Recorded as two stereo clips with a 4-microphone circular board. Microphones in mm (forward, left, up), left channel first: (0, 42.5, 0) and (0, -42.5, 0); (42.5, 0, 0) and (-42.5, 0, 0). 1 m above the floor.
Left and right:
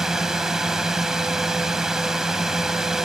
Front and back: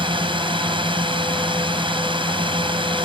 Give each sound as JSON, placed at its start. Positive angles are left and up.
{"t": 0.0, "sound": "a drone", "azimuth_deg": -175}